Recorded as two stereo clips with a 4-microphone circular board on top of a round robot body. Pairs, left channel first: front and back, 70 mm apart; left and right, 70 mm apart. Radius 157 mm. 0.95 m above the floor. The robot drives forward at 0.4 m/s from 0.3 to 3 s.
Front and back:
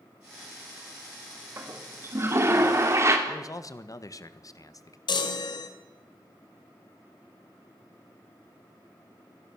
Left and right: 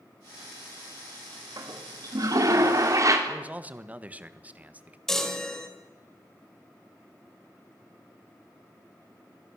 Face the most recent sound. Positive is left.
turn(degrees=5)